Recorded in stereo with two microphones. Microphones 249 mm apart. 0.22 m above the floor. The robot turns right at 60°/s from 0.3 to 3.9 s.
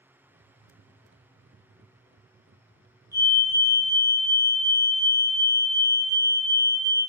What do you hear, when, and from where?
3.1 s a fire alarm: 15° right (ahead or behind), 1.9 m; by 7.0 s 25° right (ahead or behind), 1.9 m